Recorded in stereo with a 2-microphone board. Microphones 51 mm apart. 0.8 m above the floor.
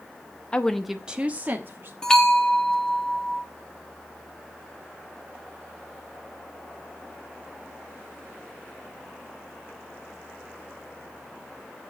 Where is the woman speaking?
20° left (ahead or behind), 0.8 m; by 1.9 s 45° right (ahead or behind), 1.6 m.